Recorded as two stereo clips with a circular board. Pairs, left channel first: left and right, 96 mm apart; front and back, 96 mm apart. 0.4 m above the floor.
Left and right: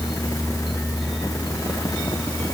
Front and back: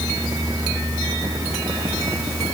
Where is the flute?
I don't hear a flute.